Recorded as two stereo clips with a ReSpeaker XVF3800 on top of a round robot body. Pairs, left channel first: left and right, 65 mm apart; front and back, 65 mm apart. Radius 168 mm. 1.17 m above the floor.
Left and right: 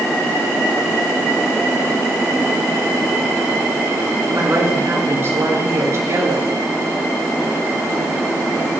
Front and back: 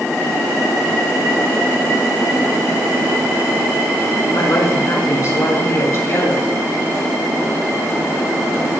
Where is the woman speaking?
40° right, 6.5 m; by 6.5 s 50° right, 7 m.